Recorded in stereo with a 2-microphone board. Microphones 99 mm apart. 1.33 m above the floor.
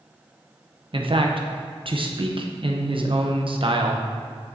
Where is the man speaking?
60° right (ahead or behind), 0.8 m.